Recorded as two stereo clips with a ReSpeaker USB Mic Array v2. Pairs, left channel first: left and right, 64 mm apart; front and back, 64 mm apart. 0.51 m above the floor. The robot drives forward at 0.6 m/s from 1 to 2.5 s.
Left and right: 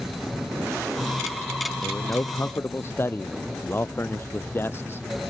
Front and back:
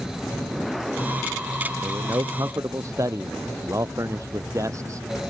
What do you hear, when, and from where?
1.8 s a man speaking: 140° left; by 5.3 s 145° left